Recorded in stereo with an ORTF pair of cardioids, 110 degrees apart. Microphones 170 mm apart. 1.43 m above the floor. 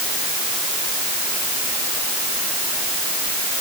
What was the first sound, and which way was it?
Only background noise.